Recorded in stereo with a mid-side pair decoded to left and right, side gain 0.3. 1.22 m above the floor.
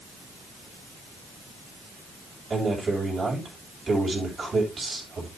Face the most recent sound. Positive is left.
turn(degrees=-45)